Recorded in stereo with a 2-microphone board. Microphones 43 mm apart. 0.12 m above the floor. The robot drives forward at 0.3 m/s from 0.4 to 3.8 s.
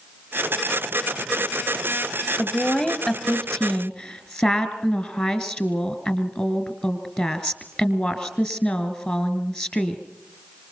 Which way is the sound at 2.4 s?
25° left (ahead or behind).